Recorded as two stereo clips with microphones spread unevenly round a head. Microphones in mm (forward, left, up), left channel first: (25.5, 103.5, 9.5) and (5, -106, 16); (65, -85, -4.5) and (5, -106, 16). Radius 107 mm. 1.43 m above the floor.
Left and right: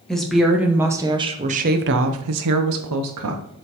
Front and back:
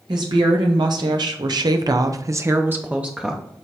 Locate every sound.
0.1 s a woman speaking: 170° left, 1.3 m; by 3.4 s 75° right, 1.0 m